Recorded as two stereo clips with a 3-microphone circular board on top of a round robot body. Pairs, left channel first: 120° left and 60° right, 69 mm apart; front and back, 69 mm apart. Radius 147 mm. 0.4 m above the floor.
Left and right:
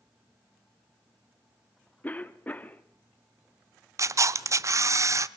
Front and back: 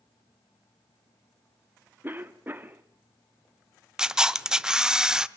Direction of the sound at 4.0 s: 100° right.